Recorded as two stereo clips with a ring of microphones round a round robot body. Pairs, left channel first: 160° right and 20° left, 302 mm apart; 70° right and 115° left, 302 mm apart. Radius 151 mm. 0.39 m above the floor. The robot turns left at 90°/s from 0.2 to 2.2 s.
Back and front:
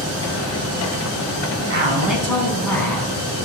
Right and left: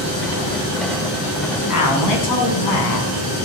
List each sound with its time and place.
1.7 s a man speaking: 30° right, 3.5 m; by 3.3 s 75° right, 3.5 m